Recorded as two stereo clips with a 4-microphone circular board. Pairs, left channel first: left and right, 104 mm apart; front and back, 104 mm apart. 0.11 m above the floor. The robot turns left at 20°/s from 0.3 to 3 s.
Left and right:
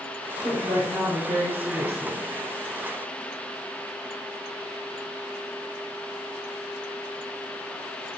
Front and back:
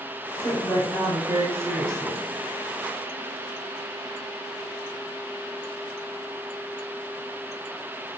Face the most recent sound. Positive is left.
turn(degrees=-105)